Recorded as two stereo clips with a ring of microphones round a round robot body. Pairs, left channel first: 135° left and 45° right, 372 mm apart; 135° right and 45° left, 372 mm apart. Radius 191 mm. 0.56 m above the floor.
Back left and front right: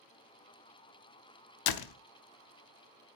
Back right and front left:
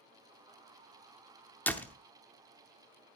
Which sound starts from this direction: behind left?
A door slam, at 1.7 s.